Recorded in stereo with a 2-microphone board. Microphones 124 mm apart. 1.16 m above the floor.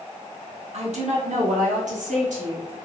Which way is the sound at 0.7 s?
60° right (ahead or behind).